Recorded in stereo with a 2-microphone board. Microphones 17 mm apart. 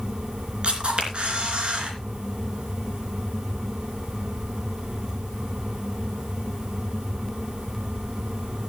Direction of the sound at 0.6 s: 65° right (ahead or behind).